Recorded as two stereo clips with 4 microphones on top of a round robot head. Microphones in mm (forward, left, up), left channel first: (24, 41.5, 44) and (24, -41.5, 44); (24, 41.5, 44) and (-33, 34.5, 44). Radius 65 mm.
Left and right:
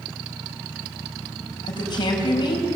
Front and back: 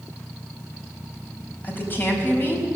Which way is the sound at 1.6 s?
60° left.